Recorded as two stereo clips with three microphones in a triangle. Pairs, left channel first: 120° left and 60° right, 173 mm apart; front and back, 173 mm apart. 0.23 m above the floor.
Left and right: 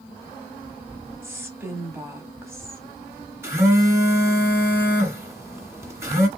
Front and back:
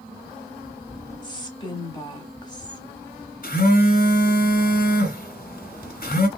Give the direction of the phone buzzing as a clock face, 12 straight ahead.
12 o'clock.